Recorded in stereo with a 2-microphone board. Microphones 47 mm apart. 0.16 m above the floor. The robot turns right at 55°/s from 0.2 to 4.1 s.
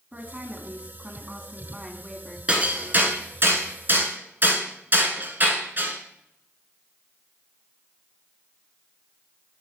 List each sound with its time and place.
0.1 s a woman speaking: 25° right (ahead or behind), 1.1 m; by 2.4 s centre (ahead or behind), 1.1 m
2.5 s hammering: 25° right (ahead or behind), 1.2 m; by 6.0 s 45° right (ahead or behind), 1.2 m